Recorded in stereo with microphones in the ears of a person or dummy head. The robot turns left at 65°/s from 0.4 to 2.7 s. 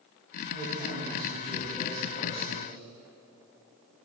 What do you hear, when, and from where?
0.5 s a woman speaking: 105° right, 0.9 m; by 2.8 s 115° left, 0.9 m